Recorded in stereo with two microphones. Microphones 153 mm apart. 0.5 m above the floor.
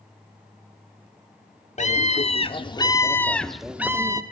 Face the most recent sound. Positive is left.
turn(degrees=-25)  # may be behind; listen again after turning